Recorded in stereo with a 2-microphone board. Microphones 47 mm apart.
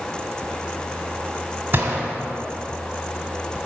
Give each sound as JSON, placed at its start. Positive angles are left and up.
{"t": 1.7, "sound": "a gunshot", "side_deg": -45, "distance_m": 1.7}